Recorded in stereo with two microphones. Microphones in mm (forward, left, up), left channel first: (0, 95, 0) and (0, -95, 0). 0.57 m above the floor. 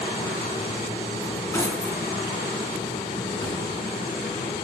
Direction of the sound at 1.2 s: 10° left (ahead or behind).